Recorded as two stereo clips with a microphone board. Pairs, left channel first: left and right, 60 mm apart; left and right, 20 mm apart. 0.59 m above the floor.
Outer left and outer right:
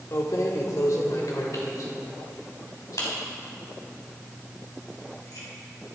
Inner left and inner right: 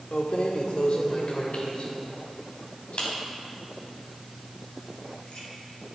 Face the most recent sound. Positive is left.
turn(degrees=65)  # may be behind; listen again after turning